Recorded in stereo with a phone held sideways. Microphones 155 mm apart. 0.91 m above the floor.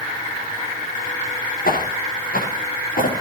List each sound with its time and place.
1.6 s footsteps: 70° left (ahead or behind), 7 m; by 3.2 s 65° left (ahead or behind), 6.5 m